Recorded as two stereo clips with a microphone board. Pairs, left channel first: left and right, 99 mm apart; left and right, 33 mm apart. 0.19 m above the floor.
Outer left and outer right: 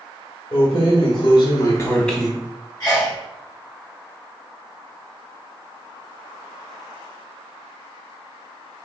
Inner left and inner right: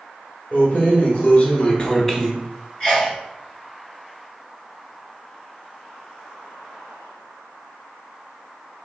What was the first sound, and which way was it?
Keys jangling, 65° left (ahead or behind).